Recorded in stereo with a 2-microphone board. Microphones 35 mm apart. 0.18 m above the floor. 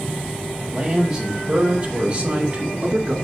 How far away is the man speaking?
About 5.5 m.